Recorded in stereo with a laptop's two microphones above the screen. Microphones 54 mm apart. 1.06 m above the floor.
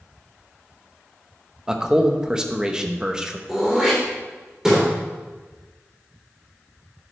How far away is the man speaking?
About 0.9 m.